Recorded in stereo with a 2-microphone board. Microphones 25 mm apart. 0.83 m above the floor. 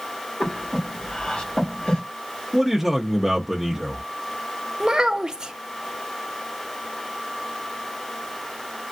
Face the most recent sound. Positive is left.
turn(degrees=-30)  # may be behind; listen again after turning